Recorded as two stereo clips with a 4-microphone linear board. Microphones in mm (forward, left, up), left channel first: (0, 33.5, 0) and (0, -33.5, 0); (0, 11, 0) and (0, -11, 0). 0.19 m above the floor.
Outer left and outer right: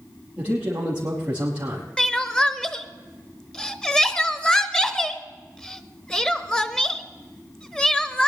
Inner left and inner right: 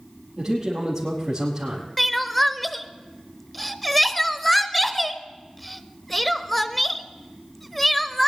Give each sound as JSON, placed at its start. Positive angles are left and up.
{"t": 0.4, "sound": "a man speaking", "side_deg": -15, "distance_m": 4.5}
{"t": 2.0, "sound": "crying", "side_deg": 10, "distance_m": 0.7}